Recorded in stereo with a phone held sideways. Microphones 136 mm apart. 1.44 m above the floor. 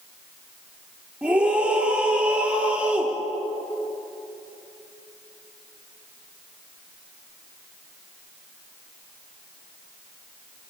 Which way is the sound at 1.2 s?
10° right (ahead or behind).